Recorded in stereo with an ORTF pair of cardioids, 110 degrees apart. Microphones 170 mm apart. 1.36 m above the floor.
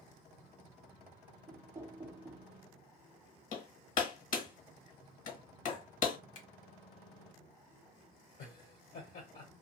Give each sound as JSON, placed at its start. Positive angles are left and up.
{"t": 1.5, "sound": "knocking", "azimuth_deg": -15, "distance_m": 0.6}
{"t": 3.5, "sound": "hammering", "azimuth_deg": 55, "distance_m": 1.3}
{"t": 6.3, "sound": "a finger snap", "azimuth_deg": 55, "distance_m": 1.4}
{"t": 8.4, "sound": "laughter", "azimuth_deg": 60, "distance_m": 1.2}